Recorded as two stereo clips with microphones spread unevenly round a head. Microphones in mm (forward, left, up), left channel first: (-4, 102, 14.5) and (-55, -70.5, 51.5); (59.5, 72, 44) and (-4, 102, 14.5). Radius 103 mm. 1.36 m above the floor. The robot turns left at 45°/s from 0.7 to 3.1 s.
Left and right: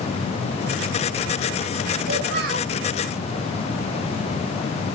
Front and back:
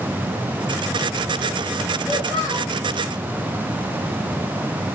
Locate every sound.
2.1 s a child speaking: 120° right, 2.5 m; by 2.7 s 150° right, 2.5 m